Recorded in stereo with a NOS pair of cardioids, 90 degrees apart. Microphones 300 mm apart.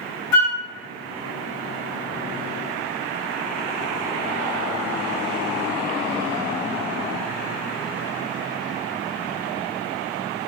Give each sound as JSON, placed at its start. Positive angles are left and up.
{"t": 0.3, "sound": "a flute", "azimuth_deg": 70, "distance_m": 0.9}